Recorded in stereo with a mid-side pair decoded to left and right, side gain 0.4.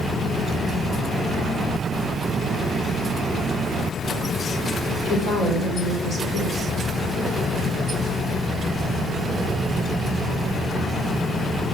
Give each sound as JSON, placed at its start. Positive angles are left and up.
{"t": 5.0, "sound": "a woman speaking", "azimuth_deg": 55, "distance_m": 4.0}